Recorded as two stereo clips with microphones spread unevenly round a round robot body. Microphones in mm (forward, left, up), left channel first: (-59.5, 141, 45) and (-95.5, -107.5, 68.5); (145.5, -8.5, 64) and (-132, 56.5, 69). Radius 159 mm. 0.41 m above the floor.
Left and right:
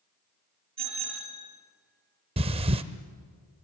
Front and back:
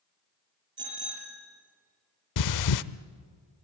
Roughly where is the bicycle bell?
Behind right.